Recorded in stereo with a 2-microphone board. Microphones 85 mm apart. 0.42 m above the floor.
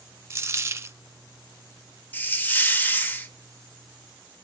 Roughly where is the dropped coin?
Right.